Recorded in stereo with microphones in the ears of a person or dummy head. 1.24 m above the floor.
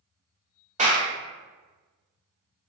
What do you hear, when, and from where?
0.8 s a clap: 35° right (ahead or behind), 1.2 m